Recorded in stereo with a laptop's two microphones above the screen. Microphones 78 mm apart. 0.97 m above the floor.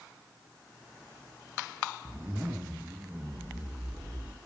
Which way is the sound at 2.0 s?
25° right (ahead or behind).